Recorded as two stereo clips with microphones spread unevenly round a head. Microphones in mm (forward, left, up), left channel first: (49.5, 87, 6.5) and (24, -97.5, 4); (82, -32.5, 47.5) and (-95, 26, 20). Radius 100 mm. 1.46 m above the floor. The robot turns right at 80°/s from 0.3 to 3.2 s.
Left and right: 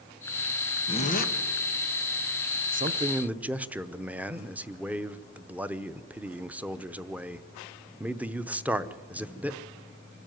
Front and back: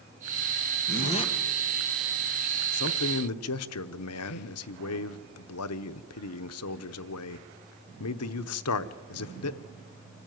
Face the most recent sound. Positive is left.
turn(degrees=-15)